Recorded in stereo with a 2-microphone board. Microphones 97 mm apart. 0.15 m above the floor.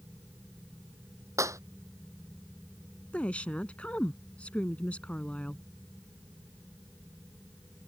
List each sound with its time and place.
1.4 s a clap: 35° right (ahead or behind)
3.1 s a woman speaking: 15° left (ahead or behind)